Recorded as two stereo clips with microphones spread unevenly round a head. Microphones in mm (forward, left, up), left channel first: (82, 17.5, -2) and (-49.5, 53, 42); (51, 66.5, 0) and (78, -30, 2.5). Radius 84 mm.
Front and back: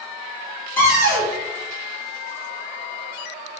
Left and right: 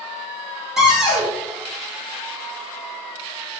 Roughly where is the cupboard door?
Ahead.